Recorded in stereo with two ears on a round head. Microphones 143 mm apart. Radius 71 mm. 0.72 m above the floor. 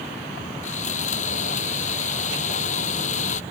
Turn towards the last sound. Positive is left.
turn(degrees=45)  # may be behind; listen again after turning